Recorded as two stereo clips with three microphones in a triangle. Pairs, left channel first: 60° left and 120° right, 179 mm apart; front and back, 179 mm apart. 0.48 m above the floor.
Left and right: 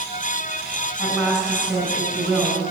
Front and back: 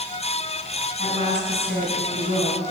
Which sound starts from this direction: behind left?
A woman speaking, at 1.0 s.